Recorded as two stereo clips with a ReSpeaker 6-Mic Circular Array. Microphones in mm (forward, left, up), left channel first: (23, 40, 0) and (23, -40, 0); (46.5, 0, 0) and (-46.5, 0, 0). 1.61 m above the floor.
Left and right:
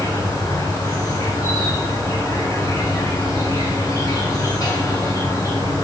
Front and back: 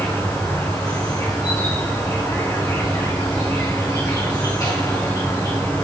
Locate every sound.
0.0 s an insect: 50° left, 2.5 m